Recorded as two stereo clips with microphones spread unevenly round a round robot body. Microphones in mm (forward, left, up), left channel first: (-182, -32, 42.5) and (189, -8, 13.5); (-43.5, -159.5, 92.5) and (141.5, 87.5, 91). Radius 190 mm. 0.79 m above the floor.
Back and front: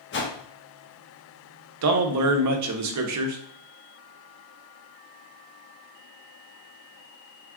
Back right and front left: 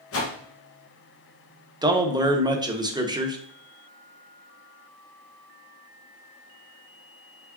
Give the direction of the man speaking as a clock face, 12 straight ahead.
1 o'clock.